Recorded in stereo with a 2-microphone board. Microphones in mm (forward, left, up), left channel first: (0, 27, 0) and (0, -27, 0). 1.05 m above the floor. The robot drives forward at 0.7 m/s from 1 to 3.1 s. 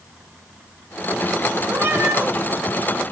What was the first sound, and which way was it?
A cat meowing, 55° right (ahead or behind).